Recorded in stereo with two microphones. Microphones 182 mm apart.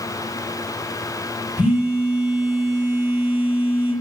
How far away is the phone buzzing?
About 0.9 m.